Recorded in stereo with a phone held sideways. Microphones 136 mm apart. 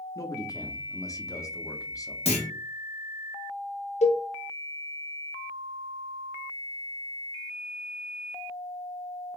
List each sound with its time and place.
0.1 s a man speaking: 25° left (ahead or behind), 0.6 m
2.2 s a clunk: 50° left (ahead or behind), 1.3 m
4.0 s a cowbell: 55° left (ahead or behind), 0.5 m